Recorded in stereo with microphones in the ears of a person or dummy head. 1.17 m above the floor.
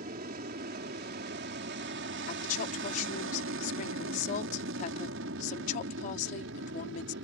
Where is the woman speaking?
45° left (ahead or behind).